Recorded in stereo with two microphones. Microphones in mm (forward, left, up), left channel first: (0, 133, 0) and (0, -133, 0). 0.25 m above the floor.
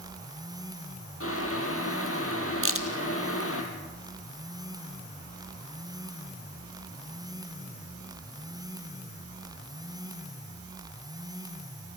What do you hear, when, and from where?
1.2 s boiling: 55° left (ahead or behind), 4 m
2.6 s a crack: 55° right (ahead or behind), 1.9 m